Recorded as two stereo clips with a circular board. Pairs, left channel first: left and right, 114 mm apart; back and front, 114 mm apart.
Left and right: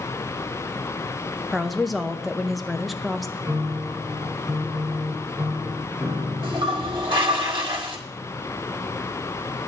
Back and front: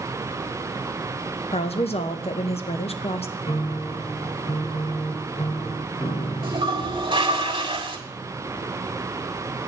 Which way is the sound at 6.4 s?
45° right.